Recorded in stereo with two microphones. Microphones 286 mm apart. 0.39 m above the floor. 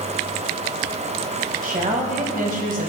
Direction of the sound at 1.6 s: 30° right (ahead or behind).